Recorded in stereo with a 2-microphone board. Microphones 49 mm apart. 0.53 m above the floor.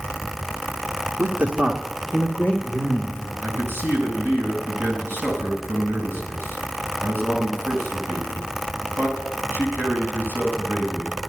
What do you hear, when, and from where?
1.2 s a man speaking: 50° right (ahead or behind), 1.2 m; by 3.3 s 40° left (ahead or behind), 2.5 m
3.4 s a man speaking: 50° right (ahead or behind), 4 m